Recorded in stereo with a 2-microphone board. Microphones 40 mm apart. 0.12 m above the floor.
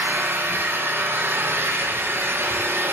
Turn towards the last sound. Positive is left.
turn(degrees=-75)  # may be behind; listen again after turning